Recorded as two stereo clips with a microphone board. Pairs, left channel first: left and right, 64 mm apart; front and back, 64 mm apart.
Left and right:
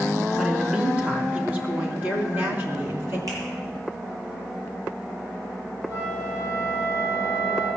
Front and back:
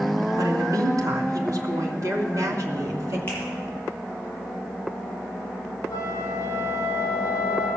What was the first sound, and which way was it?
A woman speaking, 165° right.